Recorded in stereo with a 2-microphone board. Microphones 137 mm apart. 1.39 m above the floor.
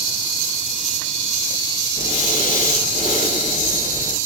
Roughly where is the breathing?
Left.